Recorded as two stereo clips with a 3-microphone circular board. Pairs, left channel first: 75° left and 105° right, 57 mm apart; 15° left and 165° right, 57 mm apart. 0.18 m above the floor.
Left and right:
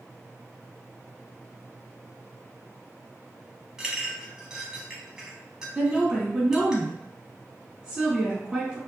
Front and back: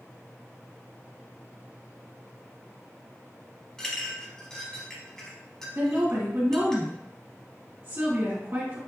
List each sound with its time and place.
3.8 s a clink: 45° right, 0.9 m
5.8 s a woman speaking: 175° right, 1.7 m